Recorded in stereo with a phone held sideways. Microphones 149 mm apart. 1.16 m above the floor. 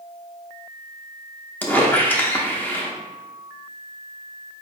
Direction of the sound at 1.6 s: 10° left (ahead or behind).